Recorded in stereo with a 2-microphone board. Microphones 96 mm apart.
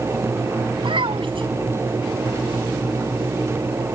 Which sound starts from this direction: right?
A child speaking, at 0.8 s.